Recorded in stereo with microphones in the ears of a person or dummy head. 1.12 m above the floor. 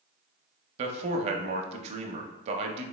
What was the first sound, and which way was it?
A man speaking, 35° right (ahead or behind).